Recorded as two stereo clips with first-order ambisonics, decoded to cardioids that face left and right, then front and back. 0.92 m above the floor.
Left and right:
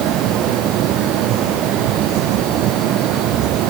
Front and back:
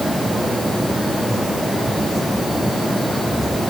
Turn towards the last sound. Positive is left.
No sound to turn to.